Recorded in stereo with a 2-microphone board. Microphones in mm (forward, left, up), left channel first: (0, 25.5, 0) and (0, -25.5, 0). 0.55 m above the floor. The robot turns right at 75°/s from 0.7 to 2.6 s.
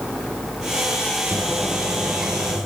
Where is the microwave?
175° left, 10 m; by 2.6 s 90° right, 10 m.